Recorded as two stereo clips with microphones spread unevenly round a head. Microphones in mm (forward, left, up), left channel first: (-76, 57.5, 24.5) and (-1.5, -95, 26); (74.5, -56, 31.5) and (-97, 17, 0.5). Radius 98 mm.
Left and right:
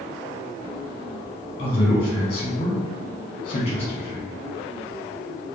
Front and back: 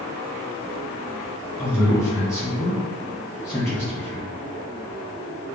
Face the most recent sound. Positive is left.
turn(degrees=60)